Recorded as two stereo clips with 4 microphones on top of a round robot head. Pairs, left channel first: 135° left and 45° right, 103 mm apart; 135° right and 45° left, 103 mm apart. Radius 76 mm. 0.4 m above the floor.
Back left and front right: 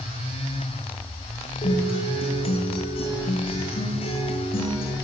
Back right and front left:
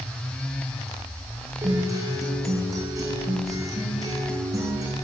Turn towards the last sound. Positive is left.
turn(degrees=105)